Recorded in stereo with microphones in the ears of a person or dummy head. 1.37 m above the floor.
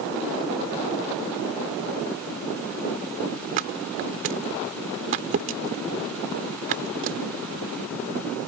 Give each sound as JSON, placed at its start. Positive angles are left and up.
{"t": 3.6, "sound": "a thud", "side_deg": -45}